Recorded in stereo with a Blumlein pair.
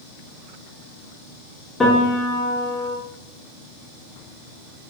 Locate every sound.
1.8 s a piano: 15° left, 0.7 m